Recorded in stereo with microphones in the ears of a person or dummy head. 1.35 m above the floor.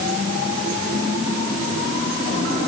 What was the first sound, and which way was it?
Only background noise.